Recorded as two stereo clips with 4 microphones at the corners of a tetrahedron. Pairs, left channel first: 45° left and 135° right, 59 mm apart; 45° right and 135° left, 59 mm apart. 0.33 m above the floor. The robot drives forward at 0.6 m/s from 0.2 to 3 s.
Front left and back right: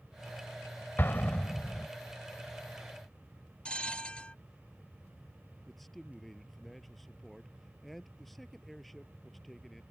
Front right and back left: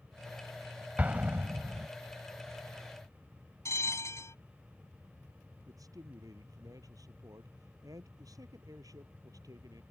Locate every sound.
1.0 s an explosion: 80° left; by 1.9 s 115° left
3.6 s a bell: 25° right
5.7 s a man speaking: 135° left